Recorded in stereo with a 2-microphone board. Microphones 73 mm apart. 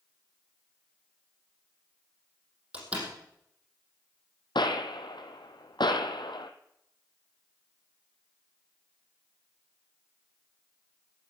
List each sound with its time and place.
2.7 s a door slam: 15° right (ahead or behind), 5 m
4.5 s a gunshot: 85° left, 1.6 m